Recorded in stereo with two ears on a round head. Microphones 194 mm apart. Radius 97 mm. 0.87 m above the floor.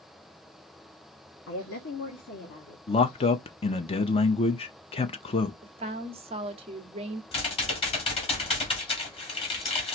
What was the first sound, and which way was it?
A woman speaking, 65° left (ahead or behind).